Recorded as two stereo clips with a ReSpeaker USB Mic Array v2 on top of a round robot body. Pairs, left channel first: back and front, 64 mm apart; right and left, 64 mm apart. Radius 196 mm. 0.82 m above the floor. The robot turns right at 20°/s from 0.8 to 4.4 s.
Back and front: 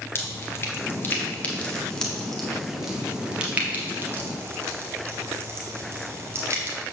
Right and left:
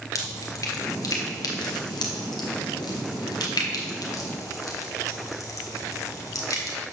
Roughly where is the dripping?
Behind right.